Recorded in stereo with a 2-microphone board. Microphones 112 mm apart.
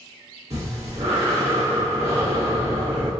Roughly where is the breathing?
Right.